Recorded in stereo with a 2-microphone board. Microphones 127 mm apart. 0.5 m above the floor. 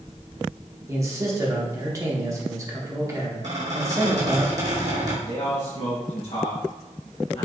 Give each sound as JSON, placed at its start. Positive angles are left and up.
{"t": 0.9, "sound": "a man speaking", "side_deg": -25, "distance_m": 0.9}
{"t": 3.4, "sound": "a squeak", "side_deg": -65, "distance_m": 1.6}
{"t": 5.3, "sound": "a man speaking", "side_deg": 60, "distance_m": 1.9}